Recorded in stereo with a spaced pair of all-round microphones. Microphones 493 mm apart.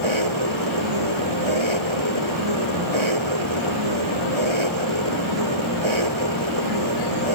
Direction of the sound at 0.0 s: 75° right (ahead or behind).